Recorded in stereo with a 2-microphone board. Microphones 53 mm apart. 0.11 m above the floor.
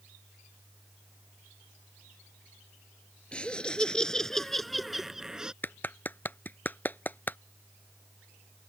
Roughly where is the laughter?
Centre.